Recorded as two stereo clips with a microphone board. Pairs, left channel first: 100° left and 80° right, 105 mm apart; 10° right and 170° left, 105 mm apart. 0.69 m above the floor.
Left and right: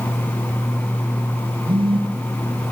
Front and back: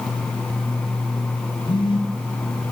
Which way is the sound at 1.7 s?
50° right.